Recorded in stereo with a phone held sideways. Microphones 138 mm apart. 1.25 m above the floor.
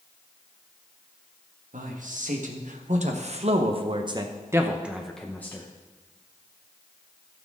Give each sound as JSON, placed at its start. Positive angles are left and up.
{"t": 1.7, "sound": "a man speaking", "side_deg": -70, "distance_m": 1.8}